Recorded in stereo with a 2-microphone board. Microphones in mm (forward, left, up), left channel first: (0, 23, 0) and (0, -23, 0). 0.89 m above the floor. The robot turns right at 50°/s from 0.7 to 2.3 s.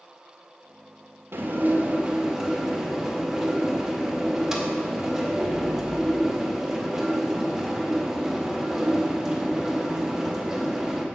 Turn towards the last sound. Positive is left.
turn(degrees=-15)